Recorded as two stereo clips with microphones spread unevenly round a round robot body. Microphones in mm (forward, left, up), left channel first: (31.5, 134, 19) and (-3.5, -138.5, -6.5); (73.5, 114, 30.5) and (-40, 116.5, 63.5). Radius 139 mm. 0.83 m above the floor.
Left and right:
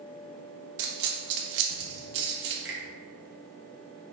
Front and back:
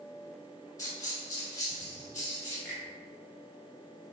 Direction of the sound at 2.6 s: 65° right.